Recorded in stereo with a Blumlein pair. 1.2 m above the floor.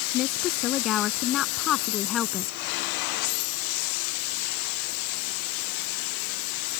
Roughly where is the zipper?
No zipper in this recording.